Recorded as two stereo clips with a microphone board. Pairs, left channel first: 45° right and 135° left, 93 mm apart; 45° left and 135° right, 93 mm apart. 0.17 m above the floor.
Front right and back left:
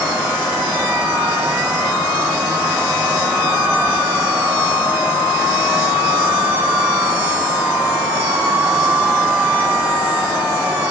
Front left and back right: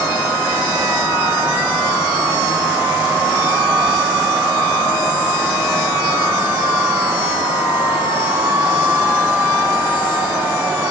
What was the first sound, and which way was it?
Only background noise.